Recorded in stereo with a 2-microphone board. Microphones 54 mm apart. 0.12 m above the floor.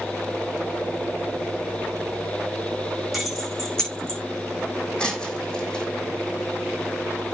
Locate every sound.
3.1 s keys jangling: centre (ahead or behind), 5 m; by 4.2 s 15° left (ahead or behind), 5.5 m
5.0 s breaking glass: 15° left (ahead or behind), 4 m